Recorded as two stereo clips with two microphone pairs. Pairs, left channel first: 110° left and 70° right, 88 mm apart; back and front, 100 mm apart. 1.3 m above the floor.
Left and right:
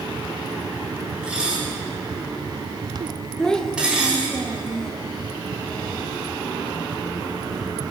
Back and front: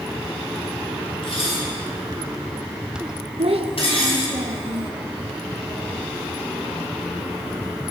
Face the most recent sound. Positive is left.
turn(degrees=25)